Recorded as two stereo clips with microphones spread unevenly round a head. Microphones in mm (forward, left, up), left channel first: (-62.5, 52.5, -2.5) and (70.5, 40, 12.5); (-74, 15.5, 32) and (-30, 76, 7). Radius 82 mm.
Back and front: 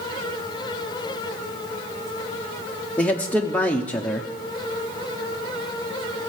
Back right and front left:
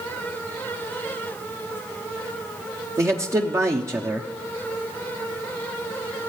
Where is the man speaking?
95° left, 0.7 m.